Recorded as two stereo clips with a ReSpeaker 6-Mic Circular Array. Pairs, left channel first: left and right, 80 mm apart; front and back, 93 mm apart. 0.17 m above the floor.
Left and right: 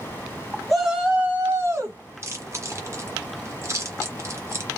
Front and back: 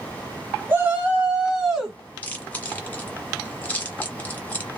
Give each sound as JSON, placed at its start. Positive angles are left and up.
{"t": 0.7, "sound": "a shout", "azimuth_deg": 175, "distance_m": 1.1}
{"t": 2.2, "sound": "chewing", "azimuth_deg": -65, "distance_m": 1.6}